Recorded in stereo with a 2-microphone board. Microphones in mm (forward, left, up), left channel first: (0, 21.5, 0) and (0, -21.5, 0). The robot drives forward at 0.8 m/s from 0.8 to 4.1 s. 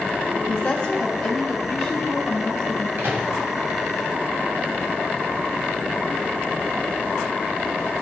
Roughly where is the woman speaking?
Left.